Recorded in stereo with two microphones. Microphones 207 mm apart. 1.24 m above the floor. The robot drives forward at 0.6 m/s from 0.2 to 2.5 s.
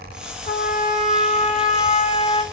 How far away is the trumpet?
About 1.8 m.